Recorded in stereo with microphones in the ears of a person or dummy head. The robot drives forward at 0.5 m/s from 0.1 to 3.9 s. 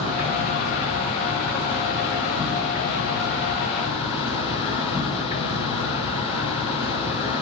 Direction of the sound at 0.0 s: 60° right (ahead or behind).